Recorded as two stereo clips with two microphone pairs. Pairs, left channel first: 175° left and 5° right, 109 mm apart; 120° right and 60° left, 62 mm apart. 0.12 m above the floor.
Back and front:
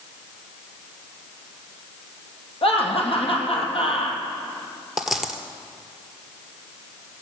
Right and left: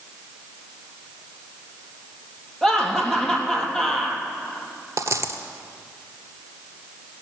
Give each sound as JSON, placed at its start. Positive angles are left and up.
{"t": 2.6, "sound": "laughter", "azimuth_deg": 160, "distance_m": 3.0}
{"t": 5.0, "sound": "a dropped coin", "azimuth_deg": 85, "distance_m": 1.3}